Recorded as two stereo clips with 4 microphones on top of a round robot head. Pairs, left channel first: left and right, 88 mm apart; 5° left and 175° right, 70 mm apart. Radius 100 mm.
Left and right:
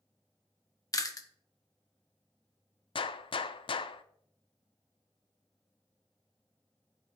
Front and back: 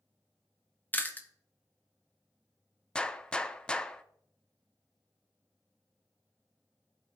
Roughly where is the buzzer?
No buzzer in this recording.